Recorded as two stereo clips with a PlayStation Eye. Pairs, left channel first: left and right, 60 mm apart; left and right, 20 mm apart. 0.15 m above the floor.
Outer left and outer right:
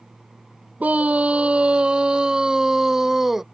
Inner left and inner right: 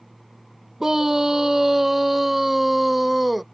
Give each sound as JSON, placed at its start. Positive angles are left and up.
{"t": 0.8, "sound": "a scream", "side_deg": -25}